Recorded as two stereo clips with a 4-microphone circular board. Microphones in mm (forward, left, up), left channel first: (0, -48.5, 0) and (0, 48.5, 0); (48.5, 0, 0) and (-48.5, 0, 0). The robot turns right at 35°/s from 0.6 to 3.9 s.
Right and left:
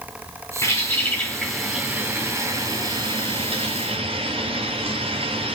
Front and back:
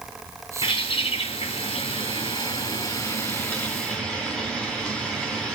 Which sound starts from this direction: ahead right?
A bird, at 0.6 s.